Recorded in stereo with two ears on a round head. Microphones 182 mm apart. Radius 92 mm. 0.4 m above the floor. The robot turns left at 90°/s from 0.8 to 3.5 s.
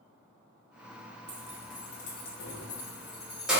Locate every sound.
1.3 s keys jangling: 10° right (ahead or behind), 0.7 m; by 3.6 s 5° right (ahead or behind), 0.7 m